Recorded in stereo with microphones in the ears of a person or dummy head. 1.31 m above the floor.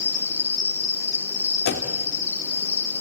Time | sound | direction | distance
0.0 | an insect | 20° left (ahead or behind) | 4.5 m
1.6 | a door slam | 55° left (ahead or behind) | 2 m